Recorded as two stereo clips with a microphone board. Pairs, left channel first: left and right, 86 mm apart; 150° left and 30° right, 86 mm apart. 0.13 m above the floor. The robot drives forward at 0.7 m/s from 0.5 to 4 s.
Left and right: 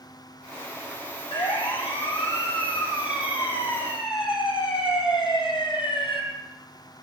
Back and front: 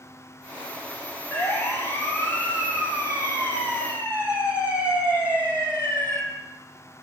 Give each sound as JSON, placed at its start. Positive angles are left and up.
{"t": 1.3, "sound": "a siren", "azimuth_deg": 95, "distance_m": 7.0}